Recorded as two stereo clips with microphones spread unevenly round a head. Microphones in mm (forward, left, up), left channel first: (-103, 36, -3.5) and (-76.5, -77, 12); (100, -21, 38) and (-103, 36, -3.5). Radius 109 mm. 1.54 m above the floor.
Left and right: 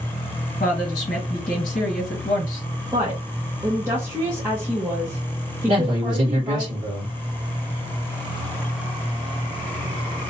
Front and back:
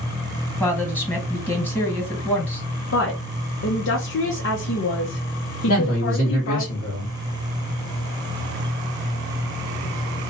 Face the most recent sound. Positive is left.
turn(degrees=-70)